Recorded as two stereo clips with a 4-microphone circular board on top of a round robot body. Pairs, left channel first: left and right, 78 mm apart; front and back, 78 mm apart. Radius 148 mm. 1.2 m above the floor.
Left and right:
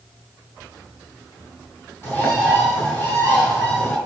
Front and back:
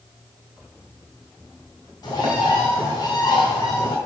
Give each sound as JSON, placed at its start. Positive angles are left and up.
{"t": 2.0, "sound": "a bird", "azimuth_deg": 30, "distance_m": 1.9}